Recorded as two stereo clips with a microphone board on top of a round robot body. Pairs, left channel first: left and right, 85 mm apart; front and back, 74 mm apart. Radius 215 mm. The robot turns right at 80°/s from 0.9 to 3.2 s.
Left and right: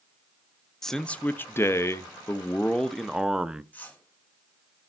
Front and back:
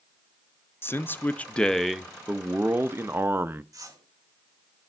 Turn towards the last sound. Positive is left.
turn(degrees=155)